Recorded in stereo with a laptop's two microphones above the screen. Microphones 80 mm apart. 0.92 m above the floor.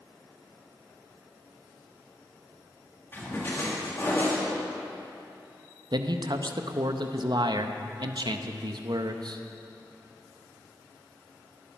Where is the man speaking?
60° right (ahead or behind), 0.6 m.